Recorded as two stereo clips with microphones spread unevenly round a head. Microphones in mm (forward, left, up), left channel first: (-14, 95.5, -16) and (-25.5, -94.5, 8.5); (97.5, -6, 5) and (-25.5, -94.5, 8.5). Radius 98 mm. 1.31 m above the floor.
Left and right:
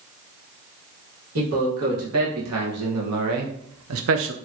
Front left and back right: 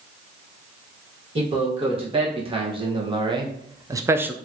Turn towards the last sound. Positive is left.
turn(degrees=-65)